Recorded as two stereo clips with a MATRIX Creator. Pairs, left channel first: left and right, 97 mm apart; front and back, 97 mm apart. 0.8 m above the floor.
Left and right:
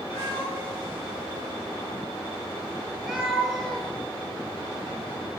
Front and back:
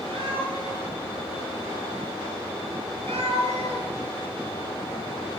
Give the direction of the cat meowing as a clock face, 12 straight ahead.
5 o'clock.